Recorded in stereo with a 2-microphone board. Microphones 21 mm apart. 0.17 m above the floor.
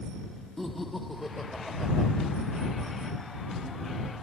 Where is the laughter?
5° left (ahead or behind); by 2.1 s centre (ahead or behind).